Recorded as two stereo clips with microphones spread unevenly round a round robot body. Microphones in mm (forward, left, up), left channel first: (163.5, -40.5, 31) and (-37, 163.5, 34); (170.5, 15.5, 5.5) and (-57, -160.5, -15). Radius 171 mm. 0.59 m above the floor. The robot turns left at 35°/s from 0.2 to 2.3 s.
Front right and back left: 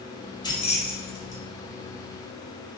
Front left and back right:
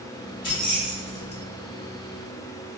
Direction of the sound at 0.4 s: 30° left.